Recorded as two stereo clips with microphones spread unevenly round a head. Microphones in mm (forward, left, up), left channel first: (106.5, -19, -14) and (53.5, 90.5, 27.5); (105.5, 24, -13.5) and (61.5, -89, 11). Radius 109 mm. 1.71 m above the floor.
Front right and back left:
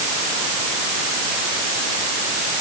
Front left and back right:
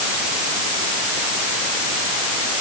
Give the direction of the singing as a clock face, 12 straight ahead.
I don't hear singing.